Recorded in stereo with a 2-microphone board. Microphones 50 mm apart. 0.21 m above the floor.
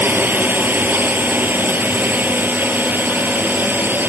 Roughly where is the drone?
Right.